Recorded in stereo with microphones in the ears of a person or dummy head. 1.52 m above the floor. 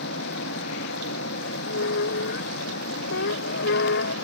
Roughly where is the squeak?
Left.